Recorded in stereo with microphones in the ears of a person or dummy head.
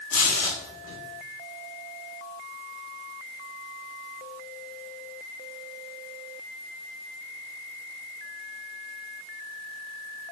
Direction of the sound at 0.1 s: 75° left (ahead or behind).